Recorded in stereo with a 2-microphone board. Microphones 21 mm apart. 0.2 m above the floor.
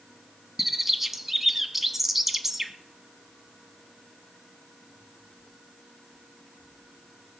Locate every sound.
0.6 s a bird: 15° right (ahead or behind), 1.2 m